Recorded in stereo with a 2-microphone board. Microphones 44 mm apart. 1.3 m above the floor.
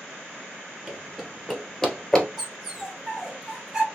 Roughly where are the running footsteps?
Centre.